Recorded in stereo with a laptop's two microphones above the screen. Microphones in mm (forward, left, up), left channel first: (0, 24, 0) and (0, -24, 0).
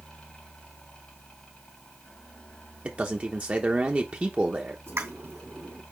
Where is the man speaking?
30° right (ahead or behind), 0.9 m.